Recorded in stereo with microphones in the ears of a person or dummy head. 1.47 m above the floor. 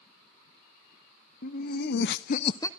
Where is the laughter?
55° left (ahead or behind), 1.1 m; by 2.7 s 20° left (ahead or behind), 0.6 m.